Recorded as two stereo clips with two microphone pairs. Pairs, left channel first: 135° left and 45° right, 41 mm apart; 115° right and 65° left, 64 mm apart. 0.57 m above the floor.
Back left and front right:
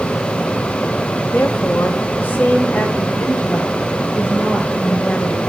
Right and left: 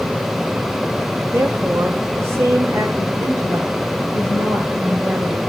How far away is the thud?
No thud in this recording.